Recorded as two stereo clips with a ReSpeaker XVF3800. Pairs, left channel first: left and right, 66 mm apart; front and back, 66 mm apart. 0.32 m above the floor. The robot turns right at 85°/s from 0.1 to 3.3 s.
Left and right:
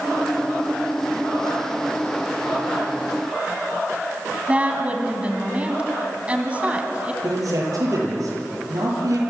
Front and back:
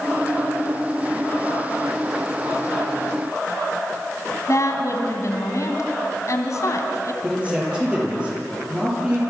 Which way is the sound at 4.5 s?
25° right.